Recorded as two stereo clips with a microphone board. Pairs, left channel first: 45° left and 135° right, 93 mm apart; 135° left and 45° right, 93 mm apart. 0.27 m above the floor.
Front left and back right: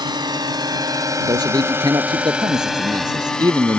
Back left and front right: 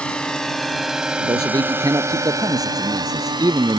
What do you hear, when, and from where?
0.0 s a drone: 150° right; by 3.8 s 30° right
1.2 s a man speaking: 90° right